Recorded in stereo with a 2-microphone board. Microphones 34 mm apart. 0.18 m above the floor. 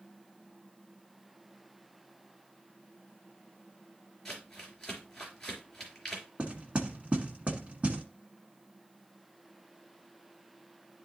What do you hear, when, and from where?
4.2 s crumpling: 10° left (ahead or behind), 3.5 m
6.4 s knocking: 35° right (ahead or behind), 1.7 m